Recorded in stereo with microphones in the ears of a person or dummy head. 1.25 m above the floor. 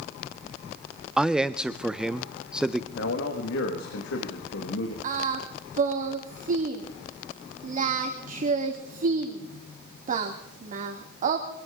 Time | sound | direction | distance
1.2 | a man speaking | 5° right (ahead or behind) | 0.6 m
3.0 | a man speaking | 70° left (ahead or behind) | 1.7 m
5.0 | singing | 45° right (ahead or behind) | 1.8 m